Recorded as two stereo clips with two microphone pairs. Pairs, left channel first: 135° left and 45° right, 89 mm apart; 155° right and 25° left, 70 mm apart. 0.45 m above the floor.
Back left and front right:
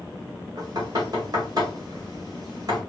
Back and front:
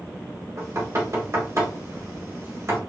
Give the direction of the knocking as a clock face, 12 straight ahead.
12 o'clock.